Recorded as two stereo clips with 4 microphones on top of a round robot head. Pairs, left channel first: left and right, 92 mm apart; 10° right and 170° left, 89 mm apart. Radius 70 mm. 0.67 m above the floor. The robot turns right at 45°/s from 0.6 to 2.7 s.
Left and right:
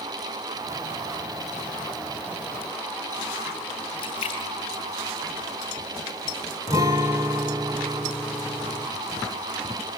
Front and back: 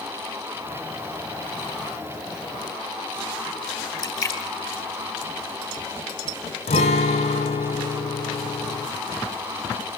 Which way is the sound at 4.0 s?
45° left.